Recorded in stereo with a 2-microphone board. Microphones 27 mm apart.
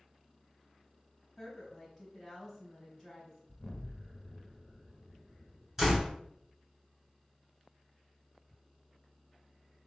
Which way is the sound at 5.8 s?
10° right (ahead or behind).